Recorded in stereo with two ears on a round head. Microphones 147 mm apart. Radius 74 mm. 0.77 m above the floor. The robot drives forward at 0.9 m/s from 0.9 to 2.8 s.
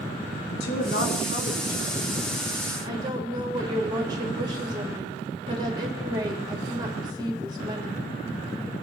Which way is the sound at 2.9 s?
25° right (ahead or behind).